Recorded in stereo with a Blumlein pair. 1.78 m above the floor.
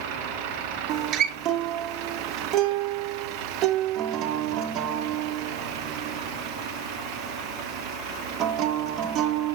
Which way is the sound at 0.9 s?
30° right.